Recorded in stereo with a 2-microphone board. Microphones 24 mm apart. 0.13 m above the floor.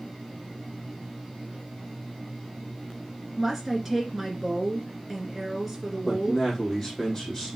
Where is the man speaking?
10° left (ahead or behind), 4 m.